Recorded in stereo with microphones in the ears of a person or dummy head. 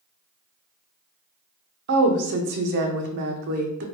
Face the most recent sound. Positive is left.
turn(degrees=-55)  # may be behind; listen again after turning